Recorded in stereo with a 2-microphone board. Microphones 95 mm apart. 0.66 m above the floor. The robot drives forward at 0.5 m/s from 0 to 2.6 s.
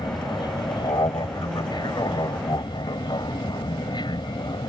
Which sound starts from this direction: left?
An aircraft, at 0.0 s.